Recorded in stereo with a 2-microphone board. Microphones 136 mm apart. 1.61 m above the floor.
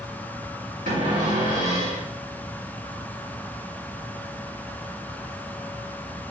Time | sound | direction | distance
0.9 | a cupboard door | 70° right (ahead or behind) | 2 m